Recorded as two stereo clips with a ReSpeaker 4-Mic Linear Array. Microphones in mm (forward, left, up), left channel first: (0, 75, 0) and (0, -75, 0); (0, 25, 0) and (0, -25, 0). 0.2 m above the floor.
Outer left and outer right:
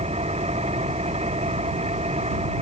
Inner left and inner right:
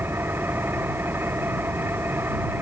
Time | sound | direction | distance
0.0 | an engine running | 45° right (ahead or behind) | ?